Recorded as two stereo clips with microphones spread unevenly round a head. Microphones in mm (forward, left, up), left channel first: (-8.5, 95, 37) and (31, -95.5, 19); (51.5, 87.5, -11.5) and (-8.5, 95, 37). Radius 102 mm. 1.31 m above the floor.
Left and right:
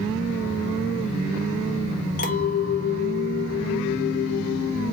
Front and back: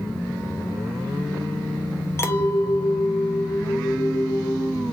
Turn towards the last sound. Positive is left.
turn(degrees=55)